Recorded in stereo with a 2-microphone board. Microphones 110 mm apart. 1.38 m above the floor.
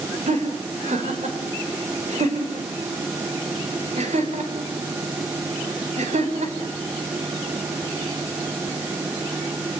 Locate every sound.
0.3 s laughter: 80° right, 5 m